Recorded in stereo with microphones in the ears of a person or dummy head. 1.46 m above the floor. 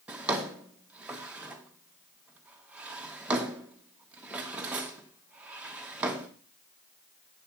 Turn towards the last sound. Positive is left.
turn(degrees=-5)  # may be behind; listen again after turning